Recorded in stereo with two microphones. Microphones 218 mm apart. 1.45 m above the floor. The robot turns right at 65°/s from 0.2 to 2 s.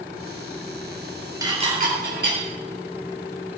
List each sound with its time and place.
1.4 s dishes clattering: 15° right (ahead or behind), 3.5 m; by 2.4 s 55° right (ahead or behind), 3.5 m